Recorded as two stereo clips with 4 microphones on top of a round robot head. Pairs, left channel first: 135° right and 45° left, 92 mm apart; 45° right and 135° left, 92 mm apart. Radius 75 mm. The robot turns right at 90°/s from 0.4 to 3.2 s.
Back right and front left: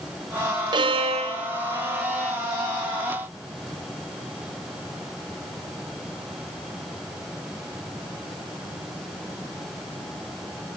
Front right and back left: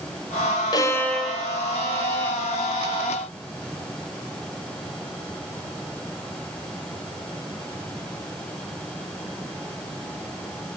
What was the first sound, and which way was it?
A violin, straight ahead.